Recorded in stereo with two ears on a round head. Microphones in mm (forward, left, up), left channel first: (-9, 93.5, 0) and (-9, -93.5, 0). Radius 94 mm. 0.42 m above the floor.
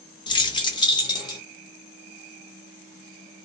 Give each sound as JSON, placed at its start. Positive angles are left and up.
{"t": 0.3, "sound": "keys jangling", "side_deg": 20, "distance_m": 0.6}